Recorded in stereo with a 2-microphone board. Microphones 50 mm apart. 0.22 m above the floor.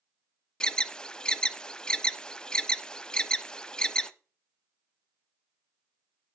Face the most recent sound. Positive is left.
turn(degrees=15)  # may be behind; listen again after turning